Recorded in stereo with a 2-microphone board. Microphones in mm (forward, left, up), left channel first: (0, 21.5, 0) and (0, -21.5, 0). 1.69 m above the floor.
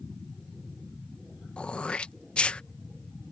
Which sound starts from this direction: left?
Throat clearing, at 1.6 s.